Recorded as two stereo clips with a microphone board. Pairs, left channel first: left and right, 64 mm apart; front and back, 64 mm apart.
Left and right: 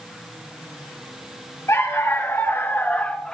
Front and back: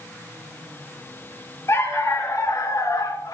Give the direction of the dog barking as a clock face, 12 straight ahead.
11 o'clock.